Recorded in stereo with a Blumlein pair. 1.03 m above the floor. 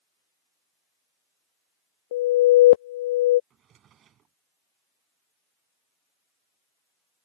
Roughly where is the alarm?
Ahead left.